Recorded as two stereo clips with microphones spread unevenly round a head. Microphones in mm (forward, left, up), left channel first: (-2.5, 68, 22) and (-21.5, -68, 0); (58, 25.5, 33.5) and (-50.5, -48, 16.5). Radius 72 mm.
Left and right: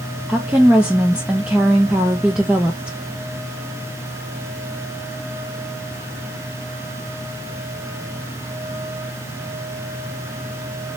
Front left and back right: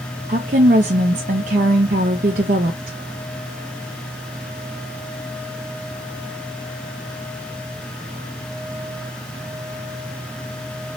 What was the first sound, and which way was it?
A woman speaking, 175° left.